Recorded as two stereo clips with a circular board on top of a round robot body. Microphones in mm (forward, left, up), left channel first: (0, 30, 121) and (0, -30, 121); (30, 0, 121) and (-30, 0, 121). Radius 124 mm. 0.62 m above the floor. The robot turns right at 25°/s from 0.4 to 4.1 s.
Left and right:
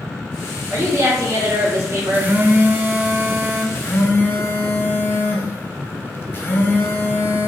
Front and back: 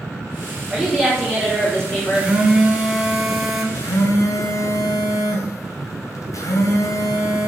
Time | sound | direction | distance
0.7 | a woman speaking | 100° right | 2.0 m
2.1 | a phone buzzing | 125° right | 0.9 m
3.8 | a phone buzzing | 25° left | 0.6 m